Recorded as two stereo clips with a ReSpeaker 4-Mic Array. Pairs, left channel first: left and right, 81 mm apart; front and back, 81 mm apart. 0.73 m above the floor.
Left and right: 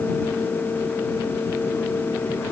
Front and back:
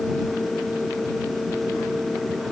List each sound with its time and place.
Only background noise.